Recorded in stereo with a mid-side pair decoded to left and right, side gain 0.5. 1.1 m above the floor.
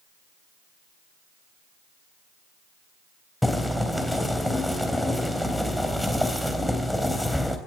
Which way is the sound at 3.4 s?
5° left.